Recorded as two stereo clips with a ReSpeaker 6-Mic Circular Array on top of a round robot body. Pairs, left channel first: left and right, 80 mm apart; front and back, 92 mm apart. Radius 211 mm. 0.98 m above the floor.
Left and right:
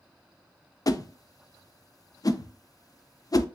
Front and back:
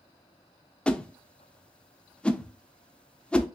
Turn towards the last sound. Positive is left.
turn(degrees=75)